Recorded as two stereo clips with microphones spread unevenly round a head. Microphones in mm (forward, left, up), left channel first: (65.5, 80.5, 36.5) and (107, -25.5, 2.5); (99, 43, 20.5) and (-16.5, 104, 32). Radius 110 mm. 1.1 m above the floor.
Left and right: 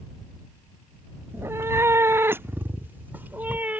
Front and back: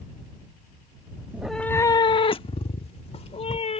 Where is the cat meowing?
165° right; by 3.8 s 15° left.